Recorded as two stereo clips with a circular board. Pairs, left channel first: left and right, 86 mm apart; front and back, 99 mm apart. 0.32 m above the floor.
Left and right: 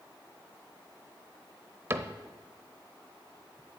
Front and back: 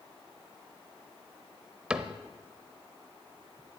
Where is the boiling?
No boiling in this recording.